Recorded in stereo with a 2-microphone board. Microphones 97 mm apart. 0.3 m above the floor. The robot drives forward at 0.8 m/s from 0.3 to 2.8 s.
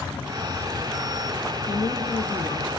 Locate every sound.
1.7 s a woman speaking: 50° left (ahead or behind), 4 m; by 2.7 s 55° left (ahead or behind), 3.5 m